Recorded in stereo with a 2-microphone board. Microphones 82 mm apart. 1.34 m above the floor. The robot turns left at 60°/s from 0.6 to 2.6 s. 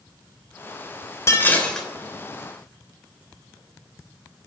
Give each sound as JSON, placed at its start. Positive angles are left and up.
{"t": 1.3, "sound": "dishes clattering", "azimuth_deg": 35, "distance_m": 3.0}